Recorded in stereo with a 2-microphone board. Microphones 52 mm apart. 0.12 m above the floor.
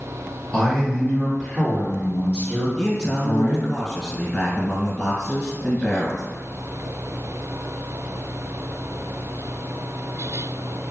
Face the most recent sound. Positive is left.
turn(degrees=20)  # may be behind; listen again after turning